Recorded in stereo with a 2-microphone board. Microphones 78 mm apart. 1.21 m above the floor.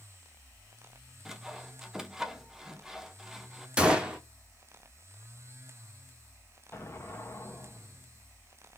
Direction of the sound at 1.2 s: 5° right (ahead or behind).